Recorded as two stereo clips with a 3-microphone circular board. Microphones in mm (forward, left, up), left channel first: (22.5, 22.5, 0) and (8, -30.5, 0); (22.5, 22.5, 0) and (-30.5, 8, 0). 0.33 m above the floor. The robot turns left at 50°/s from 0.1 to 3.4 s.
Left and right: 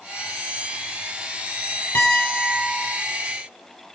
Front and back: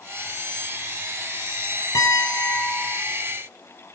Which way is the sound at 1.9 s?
25° left.